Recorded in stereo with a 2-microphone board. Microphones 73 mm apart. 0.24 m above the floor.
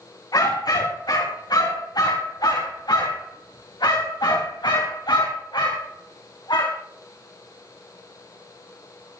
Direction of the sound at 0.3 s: 60° left (ahead or behind).